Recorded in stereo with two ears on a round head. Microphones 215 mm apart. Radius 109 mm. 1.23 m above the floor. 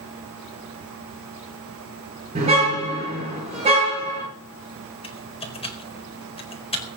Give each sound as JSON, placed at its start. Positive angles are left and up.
{"t": 2.4, "sound": "a car horn", "side_deg": -25, "distance_m": 9.0}
{"t": 5.0, "sound": "typing on a keyboard", "side_deg": 25, "distance_m": 4.5}